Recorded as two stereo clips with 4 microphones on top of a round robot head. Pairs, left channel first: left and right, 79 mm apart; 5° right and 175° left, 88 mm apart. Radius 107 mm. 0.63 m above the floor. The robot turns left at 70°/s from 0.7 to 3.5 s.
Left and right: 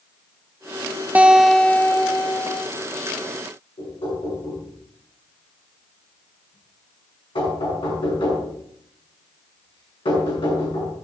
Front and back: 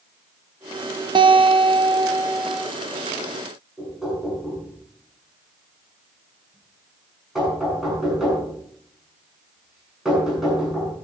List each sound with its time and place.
1.1 s a guitar: 160° right, 0.9 m; by 2.6 s 95° left, 0.9 m
3.8 s knocking: 90° left, 7.5 m